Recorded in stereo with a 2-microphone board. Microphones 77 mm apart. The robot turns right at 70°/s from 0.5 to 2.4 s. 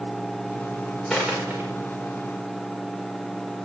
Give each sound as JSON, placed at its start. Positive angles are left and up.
{"t": 1.1, "sound": "a dropped coin", "side_deg": 0, "distance_m": 5.5}